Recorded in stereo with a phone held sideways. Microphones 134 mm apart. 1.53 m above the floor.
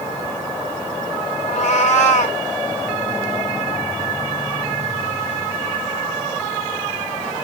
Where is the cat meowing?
60° left (ahead or behind), 1.9 m.